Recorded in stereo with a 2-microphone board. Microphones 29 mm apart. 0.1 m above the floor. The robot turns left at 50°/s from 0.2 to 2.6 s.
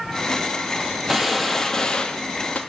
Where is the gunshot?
165° right, 0.7 m; by 2.6 s 120° left, 0.7 m.